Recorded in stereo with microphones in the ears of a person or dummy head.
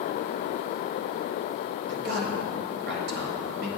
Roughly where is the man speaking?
Right.